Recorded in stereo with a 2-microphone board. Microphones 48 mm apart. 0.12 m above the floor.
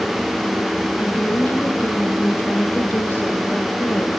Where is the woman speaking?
45° left (ahead or behind), 4.5 m.